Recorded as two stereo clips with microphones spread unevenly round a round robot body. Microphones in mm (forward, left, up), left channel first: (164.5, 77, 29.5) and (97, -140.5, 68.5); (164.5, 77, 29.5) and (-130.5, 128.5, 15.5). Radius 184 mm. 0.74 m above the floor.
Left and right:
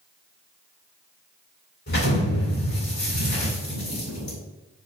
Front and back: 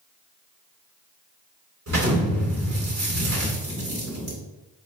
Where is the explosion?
130° left, 2 m.